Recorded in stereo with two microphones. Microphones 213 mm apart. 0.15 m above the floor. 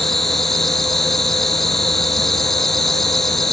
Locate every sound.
0.0 s an insect: centre (ahead or behind)